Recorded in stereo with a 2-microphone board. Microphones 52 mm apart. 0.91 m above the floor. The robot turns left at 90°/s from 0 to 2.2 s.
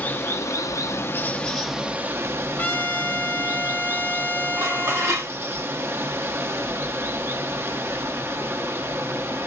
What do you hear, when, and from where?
0.0 s running water: 145° left, 0.7 m; by 9.5 s 50° right, 0.7 m
2.6 s a trumpet: 40° left (ahead or behind), 0.8 m
4.6 s dishes clattering: 60° right (ahead or behind), 1.5 m